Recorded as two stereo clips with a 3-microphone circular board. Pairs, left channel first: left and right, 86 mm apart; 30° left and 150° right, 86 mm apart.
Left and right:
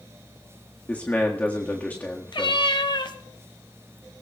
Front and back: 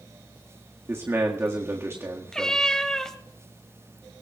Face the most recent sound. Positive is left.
turn(degrees=110)